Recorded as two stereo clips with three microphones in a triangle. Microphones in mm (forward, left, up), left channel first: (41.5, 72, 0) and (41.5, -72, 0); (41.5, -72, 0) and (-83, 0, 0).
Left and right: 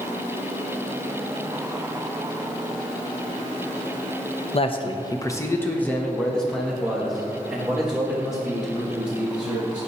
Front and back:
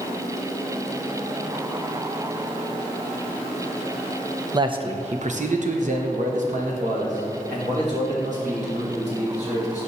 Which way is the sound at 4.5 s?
105° left.